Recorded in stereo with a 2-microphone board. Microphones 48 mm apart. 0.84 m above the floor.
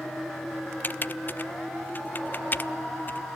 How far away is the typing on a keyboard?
About 0.6 m.